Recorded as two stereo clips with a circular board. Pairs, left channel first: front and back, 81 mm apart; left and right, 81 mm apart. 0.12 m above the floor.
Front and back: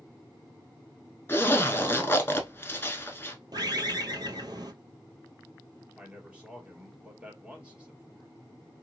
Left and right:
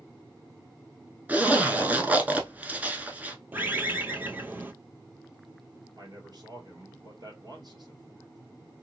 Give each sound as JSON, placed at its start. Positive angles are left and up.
{"t": 1.3, "sound": "a zipper", "azimuth_deg": -35, "distance_m": 0.7}
{"t": 3.5, "sound": "a bird", "azimuth_deg": -155, "distance_m": 0.6}
{"t": 6.0, "sound": "a man speaking", "azimuth_deg": -105, "distance_m": 2.0}